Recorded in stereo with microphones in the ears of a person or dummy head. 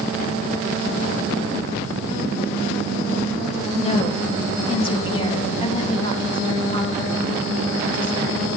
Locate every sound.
3.7 s a woman speaking: 30° left (ahead or behind), 1.6 m; by 8.5 s 20° left (ahead or behind), 5 m